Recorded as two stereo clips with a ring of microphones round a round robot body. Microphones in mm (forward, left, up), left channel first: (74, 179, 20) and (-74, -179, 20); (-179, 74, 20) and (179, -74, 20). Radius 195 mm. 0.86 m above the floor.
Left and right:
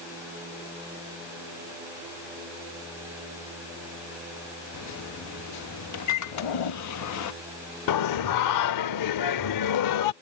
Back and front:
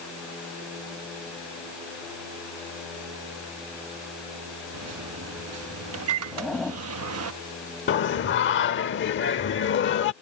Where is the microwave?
25° left.